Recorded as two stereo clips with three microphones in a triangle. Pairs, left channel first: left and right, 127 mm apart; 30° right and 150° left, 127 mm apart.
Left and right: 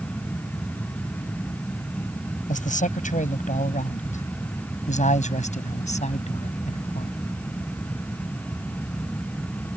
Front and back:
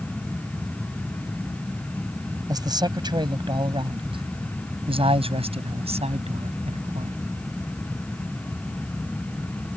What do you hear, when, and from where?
2.5 s a man speaking: 90° left; by 7.2 s 120° left